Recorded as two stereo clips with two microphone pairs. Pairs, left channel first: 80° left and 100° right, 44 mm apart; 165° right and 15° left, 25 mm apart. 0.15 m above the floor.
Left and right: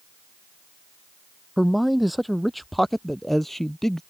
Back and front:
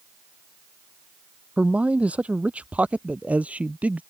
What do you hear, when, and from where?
1.6 s a man speaking: 15° right; by 4.0 s straight ahead